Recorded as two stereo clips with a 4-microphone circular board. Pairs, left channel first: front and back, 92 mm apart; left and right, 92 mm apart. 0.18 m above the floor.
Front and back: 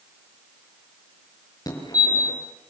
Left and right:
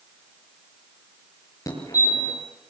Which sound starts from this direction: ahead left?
A fire alarm, at 1.7 s.